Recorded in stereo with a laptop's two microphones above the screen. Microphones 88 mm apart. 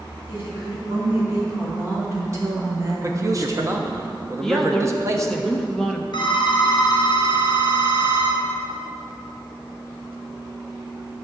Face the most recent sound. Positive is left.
turn(degrees=50)  # may be behind; listen again after turning